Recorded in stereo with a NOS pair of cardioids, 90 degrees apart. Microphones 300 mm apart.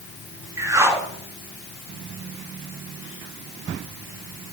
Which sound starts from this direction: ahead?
A whoosh, at 0.6 s.